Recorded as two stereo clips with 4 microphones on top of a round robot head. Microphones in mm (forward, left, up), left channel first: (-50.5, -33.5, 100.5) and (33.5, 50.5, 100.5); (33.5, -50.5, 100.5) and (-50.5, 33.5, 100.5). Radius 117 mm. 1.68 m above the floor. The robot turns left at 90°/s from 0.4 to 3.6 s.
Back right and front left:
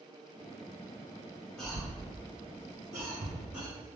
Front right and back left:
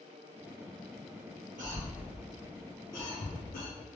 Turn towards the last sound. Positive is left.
turn(degrees=-45)